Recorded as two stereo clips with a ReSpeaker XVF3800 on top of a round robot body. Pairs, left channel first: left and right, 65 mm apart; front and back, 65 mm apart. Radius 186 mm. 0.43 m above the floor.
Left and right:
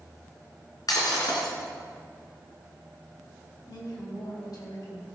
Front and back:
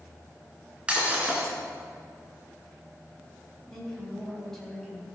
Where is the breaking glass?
105° left, 3 m.